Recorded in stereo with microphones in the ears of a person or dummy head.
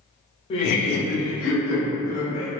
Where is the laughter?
25° left (ahead or behind), 0.6 m; by 2.5 s 80° left, 2.0 m.